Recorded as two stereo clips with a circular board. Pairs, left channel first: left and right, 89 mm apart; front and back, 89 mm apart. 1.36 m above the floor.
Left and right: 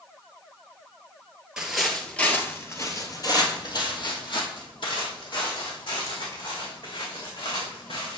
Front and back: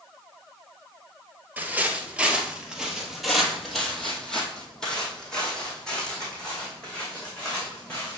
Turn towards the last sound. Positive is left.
turn(degrees=80)